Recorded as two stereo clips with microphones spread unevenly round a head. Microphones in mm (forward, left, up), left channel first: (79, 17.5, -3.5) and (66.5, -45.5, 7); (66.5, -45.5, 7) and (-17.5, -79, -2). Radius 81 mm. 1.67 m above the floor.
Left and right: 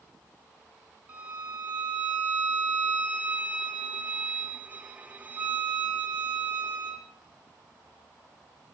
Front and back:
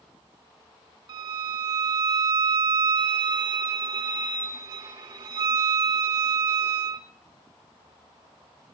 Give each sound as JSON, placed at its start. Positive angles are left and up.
{"t": 1.1, "sound": "a violin", "azimuth_deg": -150, "distance_m": 1.1}